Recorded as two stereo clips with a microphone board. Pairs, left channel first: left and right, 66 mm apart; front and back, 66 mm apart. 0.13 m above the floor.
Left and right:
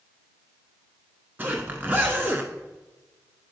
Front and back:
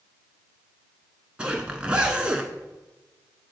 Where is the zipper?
120° right, 1.0 m.